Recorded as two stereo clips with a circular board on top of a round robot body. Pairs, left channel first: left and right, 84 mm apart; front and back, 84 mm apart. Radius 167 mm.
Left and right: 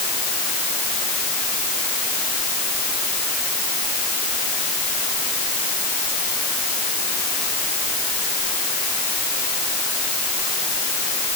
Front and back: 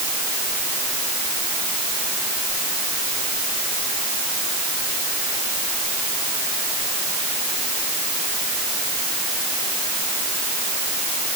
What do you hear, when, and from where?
Only background noise.